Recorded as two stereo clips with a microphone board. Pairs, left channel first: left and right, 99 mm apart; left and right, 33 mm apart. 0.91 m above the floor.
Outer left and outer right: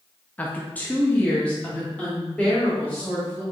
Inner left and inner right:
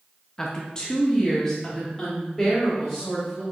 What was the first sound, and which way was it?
A woman speaking, 15° left (ahead or behind).